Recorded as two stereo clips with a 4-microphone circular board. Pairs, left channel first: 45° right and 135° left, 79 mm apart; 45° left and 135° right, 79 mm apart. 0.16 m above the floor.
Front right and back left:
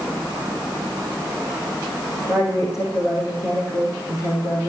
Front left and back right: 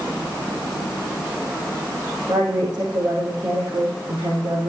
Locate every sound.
2.3 s a woman speaking: 100° right, 6.5 m